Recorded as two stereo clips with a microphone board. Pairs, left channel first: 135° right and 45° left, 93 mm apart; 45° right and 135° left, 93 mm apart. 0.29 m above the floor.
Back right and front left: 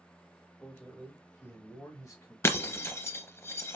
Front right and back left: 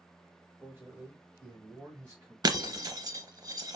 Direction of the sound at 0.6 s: 175° left.